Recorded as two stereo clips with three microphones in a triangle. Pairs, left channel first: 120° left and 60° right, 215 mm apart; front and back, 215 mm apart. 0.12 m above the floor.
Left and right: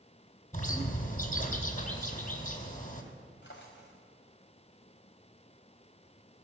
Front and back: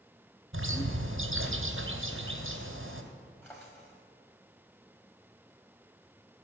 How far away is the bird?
About 2 m.